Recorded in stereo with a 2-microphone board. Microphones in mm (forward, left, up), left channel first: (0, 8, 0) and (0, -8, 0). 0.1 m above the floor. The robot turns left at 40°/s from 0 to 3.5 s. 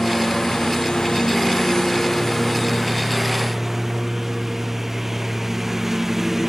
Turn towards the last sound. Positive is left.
turn(degrees=-15)